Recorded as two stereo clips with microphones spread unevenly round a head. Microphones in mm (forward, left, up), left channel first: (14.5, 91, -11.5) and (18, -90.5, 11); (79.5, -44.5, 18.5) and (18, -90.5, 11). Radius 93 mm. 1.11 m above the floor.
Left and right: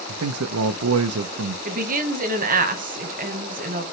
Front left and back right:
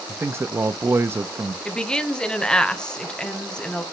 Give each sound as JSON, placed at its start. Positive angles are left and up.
{"t": 0.1, "sound": "a man speaking", "azimuth_deg": -85, "distance_m": 0.5}
{"t": 1.6, "sound": "a woman speaking", "azimuth_deg": -45, "distance_m": 1.1}